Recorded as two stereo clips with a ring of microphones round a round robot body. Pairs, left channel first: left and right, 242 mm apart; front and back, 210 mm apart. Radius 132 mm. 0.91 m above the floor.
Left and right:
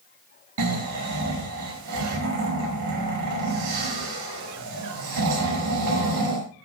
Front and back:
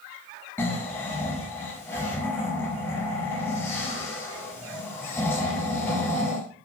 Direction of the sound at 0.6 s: 80° right.